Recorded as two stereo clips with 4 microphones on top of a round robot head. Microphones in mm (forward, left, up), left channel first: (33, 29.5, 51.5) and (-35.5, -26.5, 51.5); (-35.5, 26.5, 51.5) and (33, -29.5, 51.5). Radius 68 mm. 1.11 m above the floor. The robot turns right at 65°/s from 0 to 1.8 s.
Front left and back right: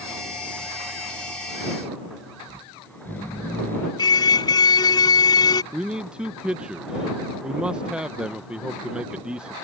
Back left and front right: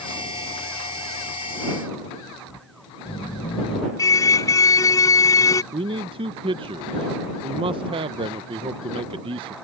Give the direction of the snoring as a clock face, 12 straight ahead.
8 o'clock.